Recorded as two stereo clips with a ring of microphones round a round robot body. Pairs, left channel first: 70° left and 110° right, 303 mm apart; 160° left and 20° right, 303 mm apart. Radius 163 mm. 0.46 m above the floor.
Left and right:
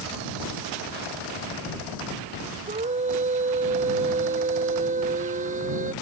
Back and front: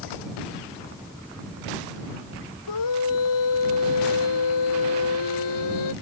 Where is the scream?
Straight behind.